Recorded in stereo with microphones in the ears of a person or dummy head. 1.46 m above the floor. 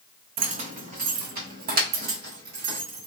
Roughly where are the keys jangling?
Right.